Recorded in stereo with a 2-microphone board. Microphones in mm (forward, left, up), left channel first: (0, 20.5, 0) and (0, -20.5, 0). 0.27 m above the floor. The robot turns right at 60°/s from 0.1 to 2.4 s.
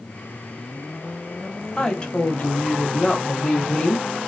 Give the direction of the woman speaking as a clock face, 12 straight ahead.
11 o'clock.